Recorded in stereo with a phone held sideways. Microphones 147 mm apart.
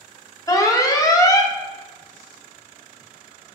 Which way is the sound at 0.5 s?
25° left (ahead or behind).